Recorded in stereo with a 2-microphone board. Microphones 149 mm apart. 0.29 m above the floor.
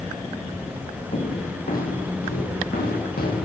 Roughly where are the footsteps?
Left.